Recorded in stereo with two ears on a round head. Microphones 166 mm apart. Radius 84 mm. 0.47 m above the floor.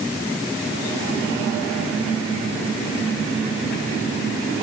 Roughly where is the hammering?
No hammering in this recording.